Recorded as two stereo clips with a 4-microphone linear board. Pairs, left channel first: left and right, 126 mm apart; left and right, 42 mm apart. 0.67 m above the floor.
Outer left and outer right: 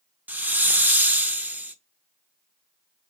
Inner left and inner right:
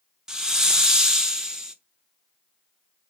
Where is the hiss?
15° right (ahead or behind), 0.6 m.